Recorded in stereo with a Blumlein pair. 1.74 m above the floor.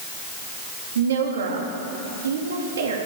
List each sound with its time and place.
0.9 s a woman speaking: 65° right, 4 m